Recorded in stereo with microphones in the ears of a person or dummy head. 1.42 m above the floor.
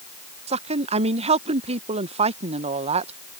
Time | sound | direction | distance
0.5 | a woman speaking | 35° right (ahead or behind) | ?